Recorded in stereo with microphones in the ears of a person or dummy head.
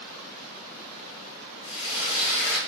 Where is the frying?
80° left, 1.4 m.